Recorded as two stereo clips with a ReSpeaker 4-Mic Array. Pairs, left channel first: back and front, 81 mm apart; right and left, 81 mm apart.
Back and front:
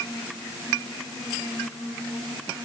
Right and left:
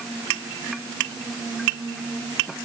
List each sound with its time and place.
Only background noise.